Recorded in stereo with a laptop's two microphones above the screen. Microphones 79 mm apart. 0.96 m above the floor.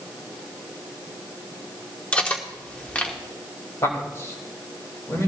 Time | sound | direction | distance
2.1 | cutlery clinking | 20° left (ahead or behind) | 1.1 m
3.8 | a man speaking | 40° left (ahead or behind) | 4 m